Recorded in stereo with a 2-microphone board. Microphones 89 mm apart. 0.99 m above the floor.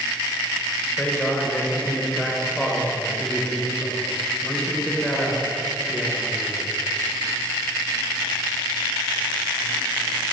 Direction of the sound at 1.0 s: 15° left (ahead or behind).